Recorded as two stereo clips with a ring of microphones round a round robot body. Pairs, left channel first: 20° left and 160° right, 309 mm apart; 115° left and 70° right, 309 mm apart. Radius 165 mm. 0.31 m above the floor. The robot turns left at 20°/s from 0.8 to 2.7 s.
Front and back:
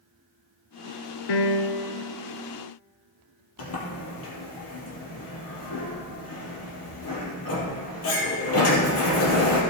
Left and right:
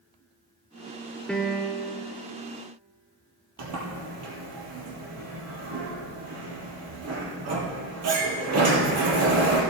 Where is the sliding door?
25° right, 2.5 m.